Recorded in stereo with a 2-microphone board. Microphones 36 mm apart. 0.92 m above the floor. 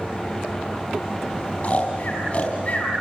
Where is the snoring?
40° left (ahead or behind), 4 m.